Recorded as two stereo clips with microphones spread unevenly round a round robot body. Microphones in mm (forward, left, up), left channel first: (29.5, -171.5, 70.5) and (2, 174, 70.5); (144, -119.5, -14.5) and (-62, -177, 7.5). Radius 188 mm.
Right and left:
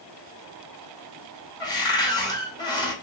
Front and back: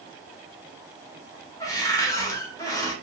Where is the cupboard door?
20° right, 1.4 m.